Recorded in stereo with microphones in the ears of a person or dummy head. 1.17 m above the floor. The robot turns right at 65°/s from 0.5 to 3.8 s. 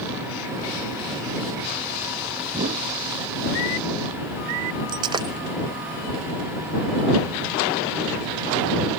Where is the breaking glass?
25° right (ahead or behind).